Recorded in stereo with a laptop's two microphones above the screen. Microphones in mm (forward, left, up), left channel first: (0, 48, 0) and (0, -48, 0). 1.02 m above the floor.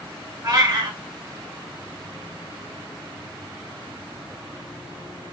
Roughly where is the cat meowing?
Right.